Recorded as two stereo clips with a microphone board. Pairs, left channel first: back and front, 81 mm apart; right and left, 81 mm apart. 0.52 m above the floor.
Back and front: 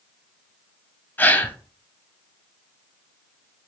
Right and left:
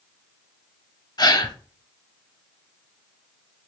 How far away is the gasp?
About 0.5 m.